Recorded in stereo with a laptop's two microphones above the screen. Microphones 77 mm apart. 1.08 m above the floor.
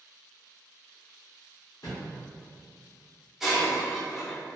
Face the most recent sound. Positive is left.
turn(degrees=0)  # may be behind; listen again after turning